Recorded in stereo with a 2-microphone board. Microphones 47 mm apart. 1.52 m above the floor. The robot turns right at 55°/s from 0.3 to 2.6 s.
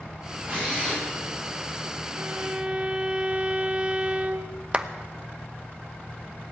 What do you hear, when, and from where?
0.5 s a drill: 40° right, 9.5 m; by 1.0 s 5° right, 9.5 m
2.1 s a violin: 45° right (ahead or behind), 1.3 m; by 4.6 s 20° right (ahead or behind), 1.3 m
4.7 s a clap: 25° right (ahead or behind), 0.8 m